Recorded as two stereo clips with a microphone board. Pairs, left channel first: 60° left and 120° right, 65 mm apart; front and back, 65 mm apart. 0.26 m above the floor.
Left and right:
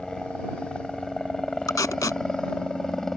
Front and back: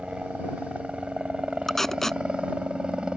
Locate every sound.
0.0 s a helicopter: 130° left
1.7 s tape being pulled: 85° left